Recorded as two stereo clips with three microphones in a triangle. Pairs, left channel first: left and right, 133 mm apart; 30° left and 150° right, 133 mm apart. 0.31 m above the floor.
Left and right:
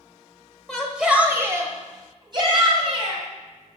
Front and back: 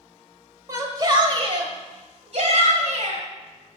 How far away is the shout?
About 1.3 m.